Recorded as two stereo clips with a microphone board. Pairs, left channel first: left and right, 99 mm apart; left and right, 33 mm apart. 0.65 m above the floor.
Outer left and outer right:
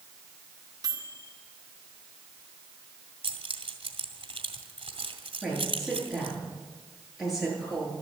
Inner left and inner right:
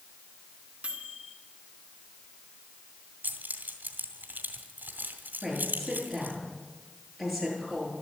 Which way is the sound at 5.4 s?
Centre (ahead or behind).